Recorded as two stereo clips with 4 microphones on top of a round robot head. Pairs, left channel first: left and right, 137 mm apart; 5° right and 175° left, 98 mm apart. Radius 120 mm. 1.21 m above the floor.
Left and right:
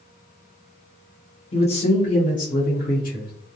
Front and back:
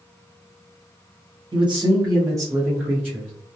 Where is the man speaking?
140° left, 1.0 m; by 3.3 s 95° left, 1.4 m.